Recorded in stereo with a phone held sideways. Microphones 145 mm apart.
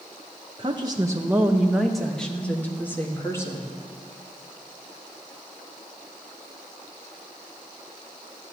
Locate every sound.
0.6 s a woman speaking: 35° right (ahead or behind), 0.9 m; by 3.7 s 20° left (ahead or behind), 2 m